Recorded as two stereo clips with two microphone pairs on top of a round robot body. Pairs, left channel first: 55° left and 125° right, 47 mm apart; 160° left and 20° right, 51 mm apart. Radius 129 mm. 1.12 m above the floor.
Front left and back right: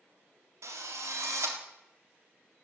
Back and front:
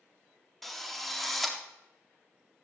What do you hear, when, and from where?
0.6 s a drill: 110° right, 3.5 m